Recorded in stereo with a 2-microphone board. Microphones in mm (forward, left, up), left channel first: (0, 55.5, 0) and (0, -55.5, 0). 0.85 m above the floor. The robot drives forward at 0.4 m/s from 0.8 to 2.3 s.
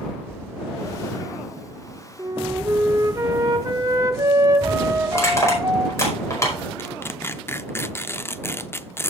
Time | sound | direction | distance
2.2 | a flute | 30° right (ahead or behind) | 1.1 m
5.1 | crushing | 25° left (ahead or behind) | 5 m
6.8 | tearing paper | 20° left (ahead or behind) | 0.5 m